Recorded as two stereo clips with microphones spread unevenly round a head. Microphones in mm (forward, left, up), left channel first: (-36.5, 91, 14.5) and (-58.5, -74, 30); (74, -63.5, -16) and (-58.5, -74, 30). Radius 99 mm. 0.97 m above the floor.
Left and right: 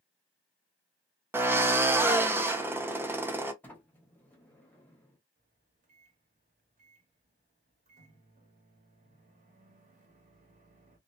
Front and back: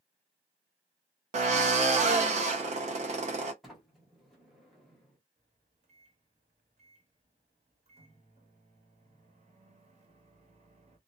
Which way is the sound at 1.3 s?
170° right.